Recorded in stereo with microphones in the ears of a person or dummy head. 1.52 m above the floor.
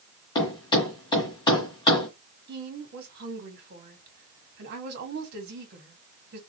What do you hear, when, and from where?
0.3 s a thud: 20° left (ahead or behind), 1.7 m
2.5 s a woman speaking: 55° right (ahead or behind), 2 m